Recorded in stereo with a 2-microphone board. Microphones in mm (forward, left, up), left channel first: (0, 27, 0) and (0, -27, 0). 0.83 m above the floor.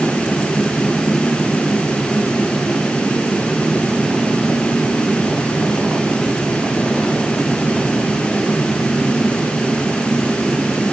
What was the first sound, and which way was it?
Only background noise.